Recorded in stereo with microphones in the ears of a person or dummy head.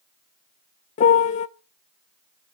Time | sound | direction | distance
1.0 | a piano | 40° left (ahead or behind) | 0.7 m